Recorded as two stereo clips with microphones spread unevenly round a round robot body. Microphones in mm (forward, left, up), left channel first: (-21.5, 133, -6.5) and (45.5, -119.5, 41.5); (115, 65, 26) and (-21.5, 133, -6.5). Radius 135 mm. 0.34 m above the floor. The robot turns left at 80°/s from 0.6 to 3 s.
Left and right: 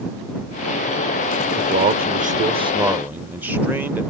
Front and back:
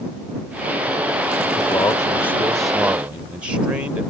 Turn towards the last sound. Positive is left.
turn(degrees=-175)